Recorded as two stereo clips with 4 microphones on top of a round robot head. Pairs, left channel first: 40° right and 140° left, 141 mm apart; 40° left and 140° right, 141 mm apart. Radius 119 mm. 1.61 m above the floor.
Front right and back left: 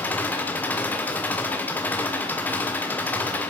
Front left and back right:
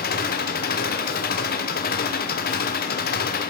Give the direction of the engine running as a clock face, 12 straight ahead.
11 o'clock.